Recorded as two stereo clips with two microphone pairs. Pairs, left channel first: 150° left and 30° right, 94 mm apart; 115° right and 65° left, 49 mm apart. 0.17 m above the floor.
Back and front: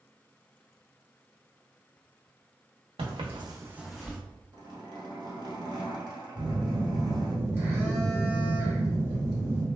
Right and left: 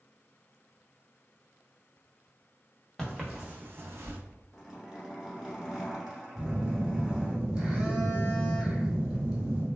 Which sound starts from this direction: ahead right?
Footsteps, at 3.0 s.